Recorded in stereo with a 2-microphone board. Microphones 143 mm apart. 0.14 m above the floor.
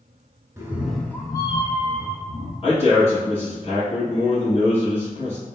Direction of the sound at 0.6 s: 20° right (ahead or behind).